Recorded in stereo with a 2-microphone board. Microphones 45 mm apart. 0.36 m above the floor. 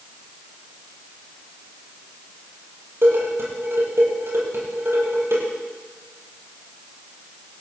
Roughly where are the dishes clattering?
Right.